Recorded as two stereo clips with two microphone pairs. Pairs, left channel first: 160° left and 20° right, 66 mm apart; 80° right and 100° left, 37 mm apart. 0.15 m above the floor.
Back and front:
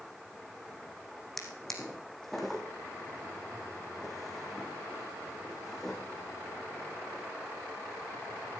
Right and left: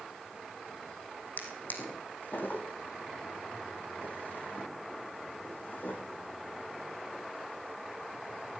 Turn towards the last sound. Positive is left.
turn(degrees=-110)